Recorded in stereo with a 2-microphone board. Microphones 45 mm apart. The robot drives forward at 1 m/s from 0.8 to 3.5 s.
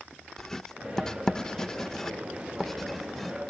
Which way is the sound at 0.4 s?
10° left (ahead or behind).